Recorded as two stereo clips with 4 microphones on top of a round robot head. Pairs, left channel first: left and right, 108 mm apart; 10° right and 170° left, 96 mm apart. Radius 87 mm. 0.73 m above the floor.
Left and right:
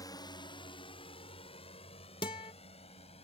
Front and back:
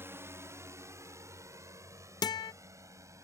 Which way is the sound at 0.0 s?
120° left.